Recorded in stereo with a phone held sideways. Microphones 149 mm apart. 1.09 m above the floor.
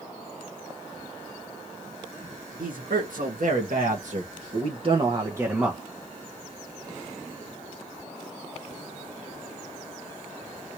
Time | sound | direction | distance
2.6 | a man speaking | 80° right | 1.6 m